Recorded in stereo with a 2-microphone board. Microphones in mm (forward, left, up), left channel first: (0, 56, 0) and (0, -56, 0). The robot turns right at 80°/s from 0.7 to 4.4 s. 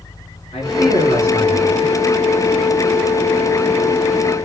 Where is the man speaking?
75° left, 5.5 m; by 1.9 s 170° left, 5.5 m.